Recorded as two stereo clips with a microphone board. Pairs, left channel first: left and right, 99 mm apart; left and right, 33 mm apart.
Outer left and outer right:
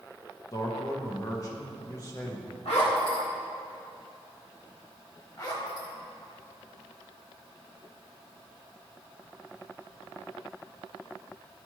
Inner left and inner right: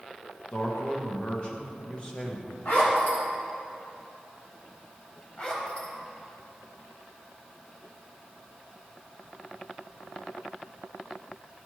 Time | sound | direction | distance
0.5 | a man speaking | 30° left (ahead or behind) | 1.1 m
2.6 | a zipper | 75° left (ahead or behind) | 1.5 m
5.4 | a zipper | 40° left (ahead or behind) | 1.1 m